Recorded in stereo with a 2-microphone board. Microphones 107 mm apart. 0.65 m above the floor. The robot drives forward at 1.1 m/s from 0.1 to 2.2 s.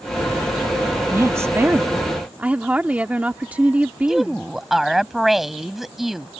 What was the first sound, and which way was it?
A woman speaking, 25° right (ahead or behind).